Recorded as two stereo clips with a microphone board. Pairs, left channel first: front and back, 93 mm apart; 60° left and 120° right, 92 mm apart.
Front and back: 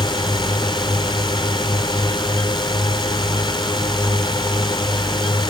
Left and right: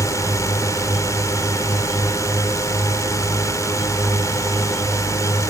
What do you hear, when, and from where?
0.0 s a drone: 10° left